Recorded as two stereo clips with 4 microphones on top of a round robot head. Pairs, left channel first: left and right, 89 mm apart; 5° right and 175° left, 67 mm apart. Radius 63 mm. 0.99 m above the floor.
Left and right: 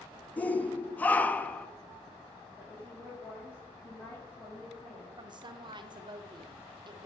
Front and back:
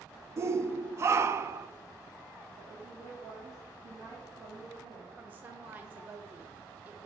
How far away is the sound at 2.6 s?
About 2.5 m.